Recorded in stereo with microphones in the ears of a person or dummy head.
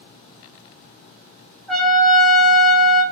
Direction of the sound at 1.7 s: 5° left (ahead or behind).